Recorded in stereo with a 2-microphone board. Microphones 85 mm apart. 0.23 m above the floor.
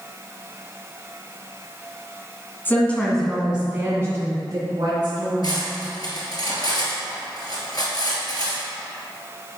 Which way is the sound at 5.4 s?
50° left (ahead or behind).